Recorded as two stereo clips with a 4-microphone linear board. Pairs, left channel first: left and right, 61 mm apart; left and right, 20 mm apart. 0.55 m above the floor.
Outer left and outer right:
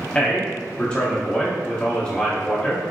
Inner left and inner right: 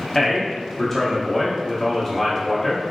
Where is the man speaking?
15° left (ahead or behind), 0.6 m.